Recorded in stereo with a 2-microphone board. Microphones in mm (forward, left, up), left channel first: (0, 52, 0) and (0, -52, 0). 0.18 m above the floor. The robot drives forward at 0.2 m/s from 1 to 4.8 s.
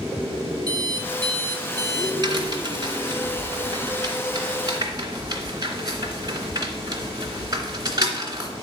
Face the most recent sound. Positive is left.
turn(degrees=-40)  # may be behind; listen again after turning